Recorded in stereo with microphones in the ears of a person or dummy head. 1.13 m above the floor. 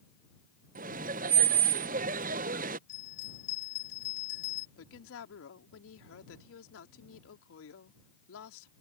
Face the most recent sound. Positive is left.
turn(degrees=80)